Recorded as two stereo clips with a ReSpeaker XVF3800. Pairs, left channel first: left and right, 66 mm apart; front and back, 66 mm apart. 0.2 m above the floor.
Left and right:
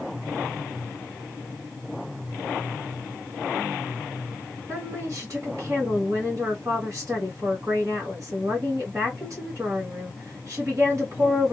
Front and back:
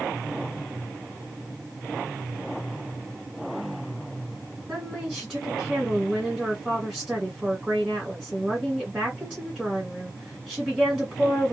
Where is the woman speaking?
105° right, 1.6 m.